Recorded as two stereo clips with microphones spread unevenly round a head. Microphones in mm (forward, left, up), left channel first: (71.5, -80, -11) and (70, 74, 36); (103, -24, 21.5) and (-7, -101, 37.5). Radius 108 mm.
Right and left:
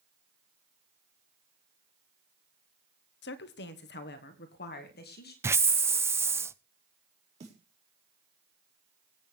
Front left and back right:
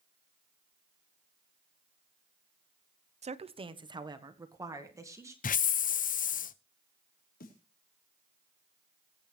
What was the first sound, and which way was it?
A woman speaking, 105° right.